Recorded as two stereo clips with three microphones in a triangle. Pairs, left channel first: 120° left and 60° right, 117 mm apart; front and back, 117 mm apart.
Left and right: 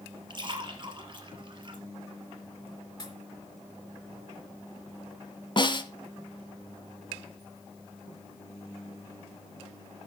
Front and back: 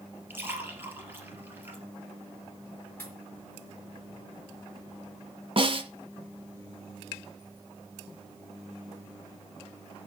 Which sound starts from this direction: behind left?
A snare drum, at 5.6 s.